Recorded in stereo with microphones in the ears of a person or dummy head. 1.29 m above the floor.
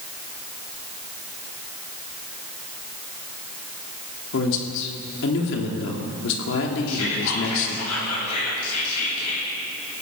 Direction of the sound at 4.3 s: 60° left (ahead or behind).